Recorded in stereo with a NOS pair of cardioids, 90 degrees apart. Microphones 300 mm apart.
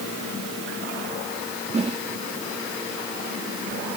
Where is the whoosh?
20° right.